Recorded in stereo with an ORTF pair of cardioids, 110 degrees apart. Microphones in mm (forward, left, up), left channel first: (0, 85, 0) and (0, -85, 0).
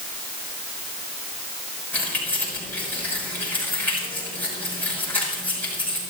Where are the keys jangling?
10° left, 6.5 m.